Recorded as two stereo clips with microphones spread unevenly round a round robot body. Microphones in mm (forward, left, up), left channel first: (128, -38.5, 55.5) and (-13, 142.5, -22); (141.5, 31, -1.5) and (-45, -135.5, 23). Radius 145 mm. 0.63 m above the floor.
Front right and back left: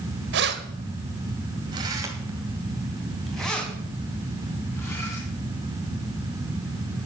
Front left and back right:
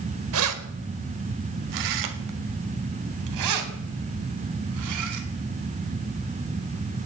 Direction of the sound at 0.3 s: 175° left.